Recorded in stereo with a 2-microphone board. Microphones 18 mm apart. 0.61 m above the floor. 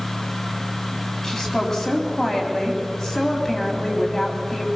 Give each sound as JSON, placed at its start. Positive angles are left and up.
{"t": 1.2, "sound": "a woman speaking", "side_deg": 15, "distance_m": 3.5}